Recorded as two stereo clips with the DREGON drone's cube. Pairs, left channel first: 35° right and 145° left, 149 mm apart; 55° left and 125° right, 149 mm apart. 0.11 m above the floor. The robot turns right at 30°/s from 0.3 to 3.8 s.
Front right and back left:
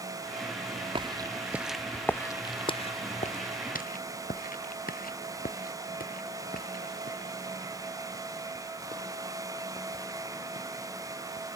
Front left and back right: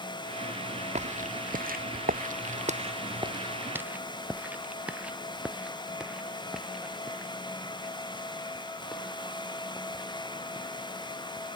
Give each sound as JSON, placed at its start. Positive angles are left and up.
{"t": 0.9, "sound": "footsteps", "azimuth_deg": -160}